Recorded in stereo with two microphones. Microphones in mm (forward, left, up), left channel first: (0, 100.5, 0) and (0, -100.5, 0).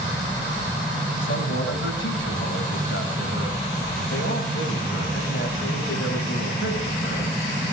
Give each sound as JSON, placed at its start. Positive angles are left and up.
{"t": 1.2, "sound": "a man speaking", "side_deg": 85, "distance_m": 4.5}